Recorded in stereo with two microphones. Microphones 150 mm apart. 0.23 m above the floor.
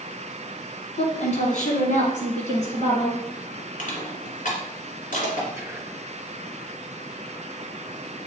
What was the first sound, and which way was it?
A woman speaking, 55° left (ahead or behind).